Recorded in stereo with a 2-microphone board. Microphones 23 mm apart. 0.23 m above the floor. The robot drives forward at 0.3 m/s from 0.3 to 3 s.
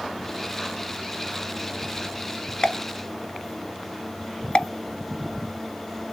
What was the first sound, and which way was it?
A pop, 40° left (ahead or behind).